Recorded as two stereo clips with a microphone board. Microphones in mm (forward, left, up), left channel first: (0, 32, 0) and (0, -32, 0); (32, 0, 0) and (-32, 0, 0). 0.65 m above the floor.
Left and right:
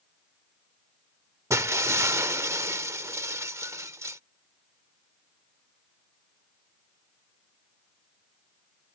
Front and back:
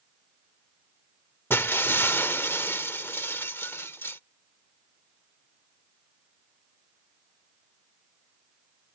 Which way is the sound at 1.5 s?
55° right.